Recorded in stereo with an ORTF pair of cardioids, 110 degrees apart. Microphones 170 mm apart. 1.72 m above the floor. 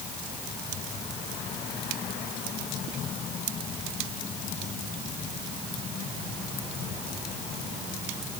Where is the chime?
No chime in this recording.